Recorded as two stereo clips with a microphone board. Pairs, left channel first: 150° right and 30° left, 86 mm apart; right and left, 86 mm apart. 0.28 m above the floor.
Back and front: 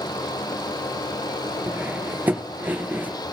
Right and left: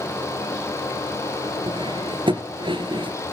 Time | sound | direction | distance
1.7 | cutlery clinking | 100° left | 2.5 m